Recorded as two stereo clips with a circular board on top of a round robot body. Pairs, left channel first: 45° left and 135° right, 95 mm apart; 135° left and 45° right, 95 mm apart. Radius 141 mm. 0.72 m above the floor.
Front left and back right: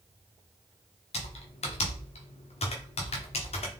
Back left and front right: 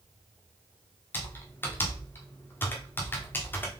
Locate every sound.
1.1 s typing on a keyboard: 65° left, 0.7 m